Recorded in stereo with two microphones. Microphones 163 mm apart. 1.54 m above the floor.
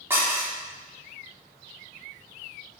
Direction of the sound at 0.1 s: 15° right (ahead or behind).